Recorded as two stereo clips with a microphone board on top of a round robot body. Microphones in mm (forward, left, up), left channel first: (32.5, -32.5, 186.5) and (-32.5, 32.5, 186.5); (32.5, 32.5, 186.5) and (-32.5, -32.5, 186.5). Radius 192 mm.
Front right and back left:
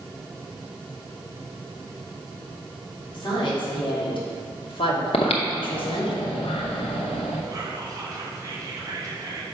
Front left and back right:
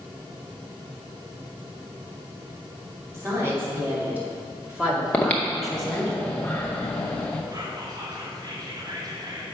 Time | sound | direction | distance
3.1 | a woman speaking | 75° right | 3 m
5.1 | breathing | 30° right | 0.7 m
7.5 | whispering | 175° right | 1.7 m